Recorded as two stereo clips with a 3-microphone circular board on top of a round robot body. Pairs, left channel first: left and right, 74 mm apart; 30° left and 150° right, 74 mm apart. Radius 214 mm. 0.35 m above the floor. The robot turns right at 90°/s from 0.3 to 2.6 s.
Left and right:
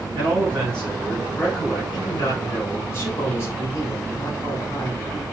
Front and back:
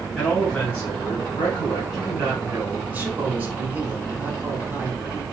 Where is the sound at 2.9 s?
145° left, 4 m.